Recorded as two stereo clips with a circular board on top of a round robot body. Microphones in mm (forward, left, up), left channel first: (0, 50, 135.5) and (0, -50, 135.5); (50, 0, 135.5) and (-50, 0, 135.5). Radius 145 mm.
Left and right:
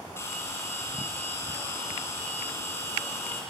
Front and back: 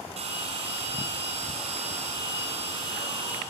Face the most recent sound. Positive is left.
turn(degrees=160)